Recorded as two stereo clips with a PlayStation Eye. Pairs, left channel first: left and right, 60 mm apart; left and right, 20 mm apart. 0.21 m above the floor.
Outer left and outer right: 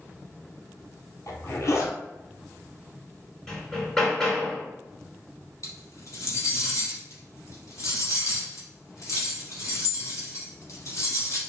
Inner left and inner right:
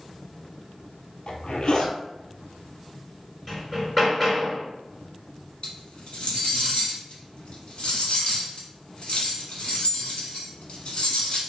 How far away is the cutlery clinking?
About 1.1 m.